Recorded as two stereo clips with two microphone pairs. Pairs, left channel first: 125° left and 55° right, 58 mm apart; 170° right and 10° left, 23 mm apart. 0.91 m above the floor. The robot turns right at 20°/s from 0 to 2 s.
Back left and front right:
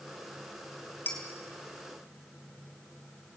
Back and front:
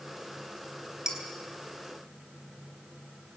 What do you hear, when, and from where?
1.1 s dishes clattering: 70° left, 4 m; by 1.2 s 75° left, 4 m